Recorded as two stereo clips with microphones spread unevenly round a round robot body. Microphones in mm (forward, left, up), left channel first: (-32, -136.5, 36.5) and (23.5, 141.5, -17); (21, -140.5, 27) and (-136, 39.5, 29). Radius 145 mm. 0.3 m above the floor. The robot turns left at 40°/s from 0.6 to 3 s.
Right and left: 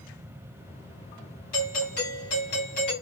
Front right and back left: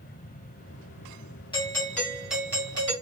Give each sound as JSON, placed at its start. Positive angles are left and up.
{"t": 1.5, "sound": "a doorbell", "azimuth_deg": -110, "distance_m": 2.0}